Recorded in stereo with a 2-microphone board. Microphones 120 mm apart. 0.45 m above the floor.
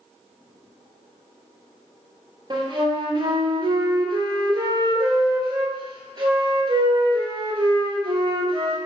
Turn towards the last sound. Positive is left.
turn(degrees=-35)  # may be behind; listen again after turning